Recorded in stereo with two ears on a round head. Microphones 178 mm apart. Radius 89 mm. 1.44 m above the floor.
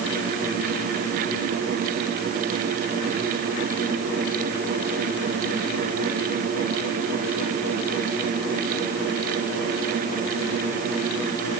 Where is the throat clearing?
I don't hear throat clearing.